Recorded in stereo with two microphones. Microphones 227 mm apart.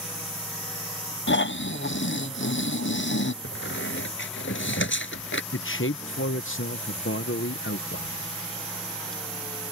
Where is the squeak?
60° left (ahead or behind).